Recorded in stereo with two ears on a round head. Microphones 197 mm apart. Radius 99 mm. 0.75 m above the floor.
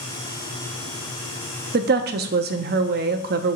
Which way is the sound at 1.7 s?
45° right (ahead or behind).